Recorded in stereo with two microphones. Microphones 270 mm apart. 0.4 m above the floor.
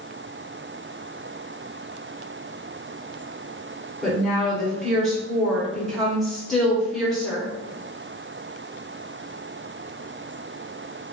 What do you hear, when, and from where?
4.0 s a woman speaking: centre (ahead or behind), 1.3 m